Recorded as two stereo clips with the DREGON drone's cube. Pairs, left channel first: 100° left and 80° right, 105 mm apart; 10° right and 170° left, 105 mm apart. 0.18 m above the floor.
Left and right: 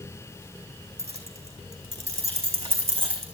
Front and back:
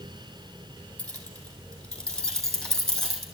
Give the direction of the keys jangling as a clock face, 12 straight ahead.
3 o'clock.